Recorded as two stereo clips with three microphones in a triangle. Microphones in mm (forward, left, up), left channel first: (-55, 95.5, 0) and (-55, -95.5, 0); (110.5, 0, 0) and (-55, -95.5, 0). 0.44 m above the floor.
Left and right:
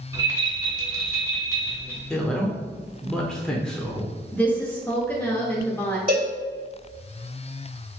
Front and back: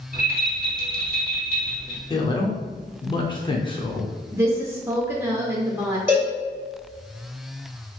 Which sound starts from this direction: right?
A cowbell, at 6.1 s.